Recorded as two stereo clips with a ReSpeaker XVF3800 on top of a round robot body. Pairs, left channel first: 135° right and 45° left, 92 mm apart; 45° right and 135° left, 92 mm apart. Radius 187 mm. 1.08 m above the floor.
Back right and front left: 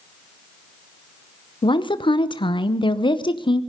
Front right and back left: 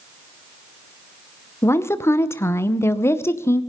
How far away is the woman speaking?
About 1.0 m.